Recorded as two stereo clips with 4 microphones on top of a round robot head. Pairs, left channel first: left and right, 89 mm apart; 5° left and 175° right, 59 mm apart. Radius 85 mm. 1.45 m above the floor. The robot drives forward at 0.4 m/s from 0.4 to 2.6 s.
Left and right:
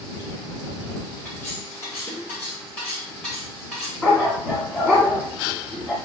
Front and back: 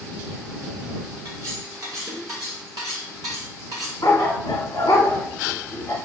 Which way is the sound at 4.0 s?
10° right.